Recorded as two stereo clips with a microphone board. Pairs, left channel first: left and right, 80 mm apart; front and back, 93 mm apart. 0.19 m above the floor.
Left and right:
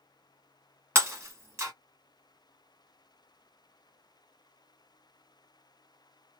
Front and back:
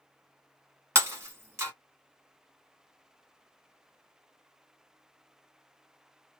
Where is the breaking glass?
130° right, 1.1 m.